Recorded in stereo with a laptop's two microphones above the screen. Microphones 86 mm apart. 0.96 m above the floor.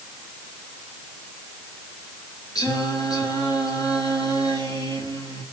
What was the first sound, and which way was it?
Singing, 45° left (ahead or behind).